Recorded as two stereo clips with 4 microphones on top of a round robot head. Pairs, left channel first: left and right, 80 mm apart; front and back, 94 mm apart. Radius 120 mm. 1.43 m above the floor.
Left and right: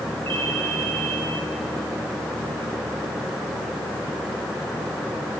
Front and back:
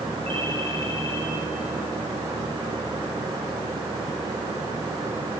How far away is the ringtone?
About 9 m.